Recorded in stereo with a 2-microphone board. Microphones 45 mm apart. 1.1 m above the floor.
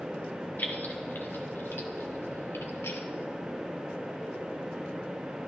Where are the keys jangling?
45° left (ahead or behind), 2.5 m; by 3.0 s 85° left, 2.5 m.